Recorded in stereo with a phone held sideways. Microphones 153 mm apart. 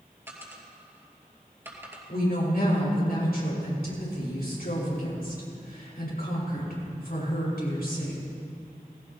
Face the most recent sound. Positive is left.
turn(degrees=75)  # may be behind; listen again after turning